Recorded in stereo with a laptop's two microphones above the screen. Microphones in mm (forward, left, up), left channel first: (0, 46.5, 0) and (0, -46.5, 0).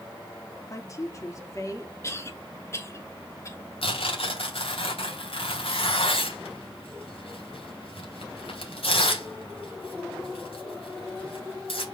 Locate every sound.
0.7 s a woman speaking: 35° left (ahead or behind), 2 m
2.0 s a cough: 30° left (ahead or behind), 3 m
3.8 s tearing paper: 80° left, 3 m